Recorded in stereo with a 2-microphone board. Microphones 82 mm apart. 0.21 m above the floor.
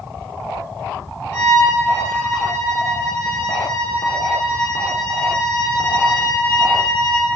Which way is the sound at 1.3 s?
35° left (ahead or behind).